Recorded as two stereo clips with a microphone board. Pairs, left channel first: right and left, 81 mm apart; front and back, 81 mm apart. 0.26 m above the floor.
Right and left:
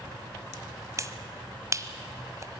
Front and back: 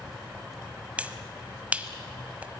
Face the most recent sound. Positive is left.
turn(degrees=115)